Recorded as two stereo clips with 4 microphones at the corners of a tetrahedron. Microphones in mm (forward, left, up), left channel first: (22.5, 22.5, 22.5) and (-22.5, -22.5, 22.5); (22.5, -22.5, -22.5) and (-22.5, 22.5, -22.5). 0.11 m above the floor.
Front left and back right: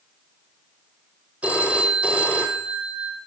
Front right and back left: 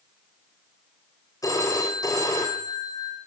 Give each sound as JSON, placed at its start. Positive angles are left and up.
{"t": 1.4, "sound": "a phone ringing", "azimuth_deg": -65, "distance_m": 3.5}